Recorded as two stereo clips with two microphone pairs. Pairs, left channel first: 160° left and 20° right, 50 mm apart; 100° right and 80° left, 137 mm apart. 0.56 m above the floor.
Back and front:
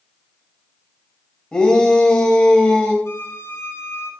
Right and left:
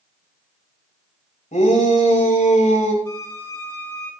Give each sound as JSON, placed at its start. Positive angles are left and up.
{"t": 1.5, "sound": "a shout", "azimuth_deg": -125, "distance_m": 2.5}
{"t": 3.0, "sound": "a violin", "azimuth_deg": -165, "distance_m": 4.5}